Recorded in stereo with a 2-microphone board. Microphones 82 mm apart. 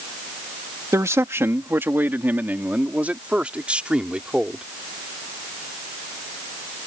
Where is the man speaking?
40° right (ahead or behind); by 4.6 s 10° right (ahead or behind).